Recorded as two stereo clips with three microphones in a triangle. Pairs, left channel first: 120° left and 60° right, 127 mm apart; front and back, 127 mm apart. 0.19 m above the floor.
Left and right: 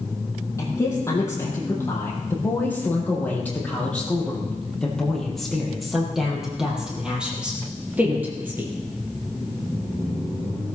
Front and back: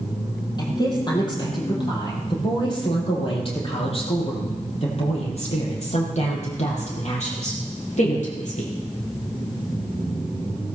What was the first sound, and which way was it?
A woman speaking, 55° left.